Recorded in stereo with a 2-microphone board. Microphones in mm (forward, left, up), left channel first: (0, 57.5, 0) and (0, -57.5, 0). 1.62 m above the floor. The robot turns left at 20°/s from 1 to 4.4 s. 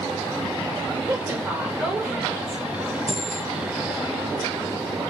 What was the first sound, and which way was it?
A woman speaking, 145° right.